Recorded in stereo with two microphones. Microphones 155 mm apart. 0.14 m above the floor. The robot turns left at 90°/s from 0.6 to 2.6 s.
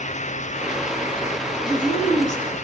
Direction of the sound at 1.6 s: 130° left.